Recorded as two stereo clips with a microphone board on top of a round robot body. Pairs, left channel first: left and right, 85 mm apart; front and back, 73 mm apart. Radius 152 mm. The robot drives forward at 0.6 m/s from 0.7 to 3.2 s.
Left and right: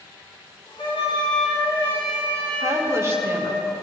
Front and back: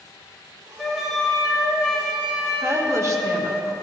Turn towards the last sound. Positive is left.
turn(degrees=-145)